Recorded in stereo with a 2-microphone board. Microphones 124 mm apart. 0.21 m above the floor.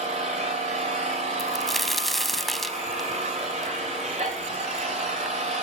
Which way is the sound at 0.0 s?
65° right (ahead or behind).